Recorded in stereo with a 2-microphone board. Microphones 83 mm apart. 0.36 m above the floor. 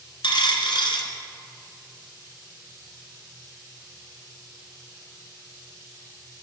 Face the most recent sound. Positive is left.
turn(degrees=80)